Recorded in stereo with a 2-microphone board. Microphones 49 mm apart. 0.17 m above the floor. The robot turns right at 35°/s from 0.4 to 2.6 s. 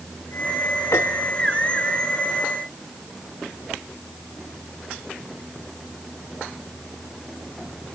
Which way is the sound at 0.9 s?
75° left (ahead or behind).